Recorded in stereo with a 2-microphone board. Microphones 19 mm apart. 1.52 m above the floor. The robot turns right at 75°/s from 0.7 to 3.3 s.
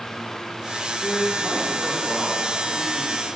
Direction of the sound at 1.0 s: 115° left.